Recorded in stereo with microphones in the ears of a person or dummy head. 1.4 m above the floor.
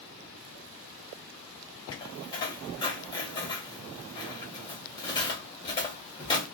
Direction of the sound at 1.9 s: 25° left (ahead or behind).